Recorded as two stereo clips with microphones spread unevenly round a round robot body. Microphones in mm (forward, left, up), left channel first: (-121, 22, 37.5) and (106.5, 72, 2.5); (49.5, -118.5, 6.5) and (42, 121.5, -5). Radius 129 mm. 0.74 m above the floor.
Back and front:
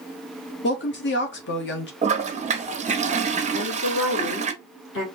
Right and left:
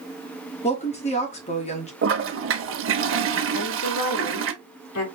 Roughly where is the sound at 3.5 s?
Behind right.